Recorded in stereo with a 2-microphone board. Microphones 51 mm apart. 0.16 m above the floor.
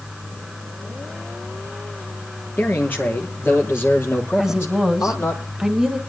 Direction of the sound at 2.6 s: 35° left (ahead or behind).